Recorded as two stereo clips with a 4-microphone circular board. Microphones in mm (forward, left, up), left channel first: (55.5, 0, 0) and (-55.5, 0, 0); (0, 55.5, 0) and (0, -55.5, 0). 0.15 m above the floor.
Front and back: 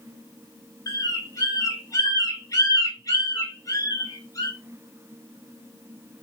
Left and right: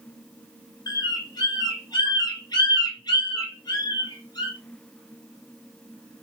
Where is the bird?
50° left, 1.0 m.